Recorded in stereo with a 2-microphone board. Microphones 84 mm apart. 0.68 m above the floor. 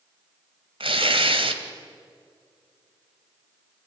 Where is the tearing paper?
80° right, 2 m.